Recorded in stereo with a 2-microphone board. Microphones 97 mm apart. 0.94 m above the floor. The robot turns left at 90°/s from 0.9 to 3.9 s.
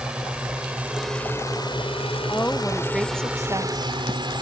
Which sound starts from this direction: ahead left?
A woman speaking, at 2.3 s.